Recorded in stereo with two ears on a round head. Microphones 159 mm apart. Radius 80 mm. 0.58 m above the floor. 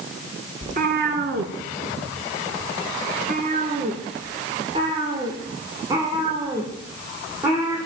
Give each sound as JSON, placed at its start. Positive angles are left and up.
{"t": 0.6, "sound": "a cat meowing", "side_deg": -45, "distance_m": 1.9}